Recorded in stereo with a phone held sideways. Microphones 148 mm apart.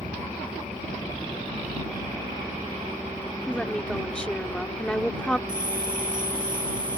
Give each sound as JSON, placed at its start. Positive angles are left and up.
{"t": 3.5, "sound": "a woman speaking", "side_deg": 5}
{"t": 5.5, "sound": "a bell", "side_deg": -70}